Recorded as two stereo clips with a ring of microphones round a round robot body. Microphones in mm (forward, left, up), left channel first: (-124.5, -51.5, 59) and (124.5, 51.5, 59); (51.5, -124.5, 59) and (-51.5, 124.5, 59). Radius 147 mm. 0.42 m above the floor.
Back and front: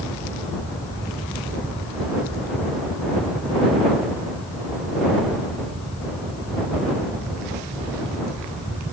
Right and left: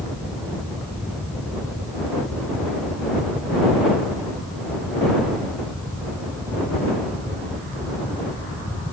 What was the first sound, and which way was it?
Only background noise.